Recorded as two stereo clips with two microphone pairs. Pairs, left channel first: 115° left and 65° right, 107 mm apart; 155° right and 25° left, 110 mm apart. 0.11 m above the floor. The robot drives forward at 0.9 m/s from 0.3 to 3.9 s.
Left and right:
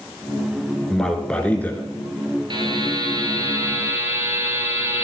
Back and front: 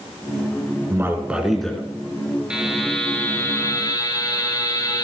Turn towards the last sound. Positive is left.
turn(degrees=-120)